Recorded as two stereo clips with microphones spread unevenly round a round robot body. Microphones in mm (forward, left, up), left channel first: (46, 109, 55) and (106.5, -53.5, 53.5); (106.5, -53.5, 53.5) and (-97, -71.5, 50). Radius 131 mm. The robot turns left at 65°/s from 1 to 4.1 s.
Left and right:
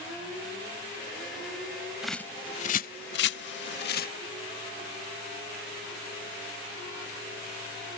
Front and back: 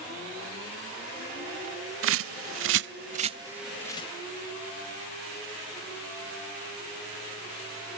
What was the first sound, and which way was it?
A bird, 155° right.